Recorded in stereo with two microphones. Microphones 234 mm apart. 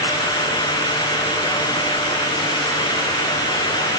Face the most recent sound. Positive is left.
No sound to turn to.